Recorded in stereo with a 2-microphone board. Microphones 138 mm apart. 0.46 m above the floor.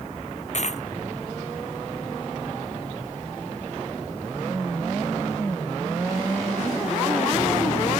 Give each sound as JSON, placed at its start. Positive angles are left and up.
{"t": 0.5, "sound": "a dropped coin", "side_deg": 55}